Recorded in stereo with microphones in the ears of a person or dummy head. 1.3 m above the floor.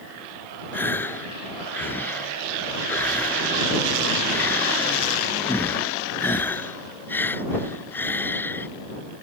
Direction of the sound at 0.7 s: 15° left (ahead or behind).